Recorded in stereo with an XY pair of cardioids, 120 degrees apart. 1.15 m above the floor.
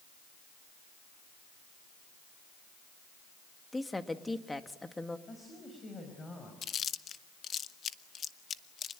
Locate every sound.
3.7 s a woman speaking: 10° left, 1.8 m
5.3 s a woman speaking: 30° left, 5.5 m
6.6 s chewing: 45° left, 0.9 m